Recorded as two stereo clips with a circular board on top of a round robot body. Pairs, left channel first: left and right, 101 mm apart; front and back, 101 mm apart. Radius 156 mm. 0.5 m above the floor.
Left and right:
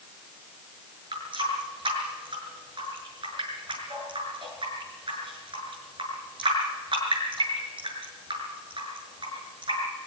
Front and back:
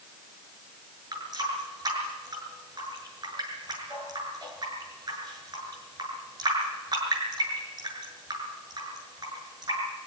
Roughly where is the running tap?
Behind right.